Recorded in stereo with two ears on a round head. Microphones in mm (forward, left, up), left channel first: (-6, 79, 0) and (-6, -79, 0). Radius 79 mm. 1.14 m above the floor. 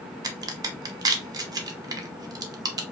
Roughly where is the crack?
Right.